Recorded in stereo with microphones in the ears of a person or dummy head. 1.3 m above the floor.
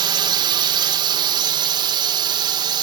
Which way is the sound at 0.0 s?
25° right (ahead or behind).